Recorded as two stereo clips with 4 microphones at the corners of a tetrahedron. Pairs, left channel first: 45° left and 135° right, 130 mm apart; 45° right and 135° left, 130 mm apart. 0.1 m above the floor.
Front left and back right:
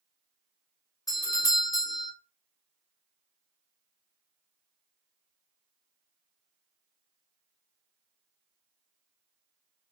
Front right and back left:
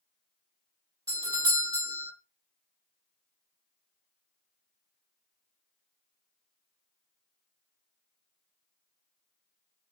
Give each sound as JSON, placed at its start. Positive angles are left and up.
{"t": 1.1, "sound": "a doorbell", "azimuth_deg": 95, "distance_m": 2.0}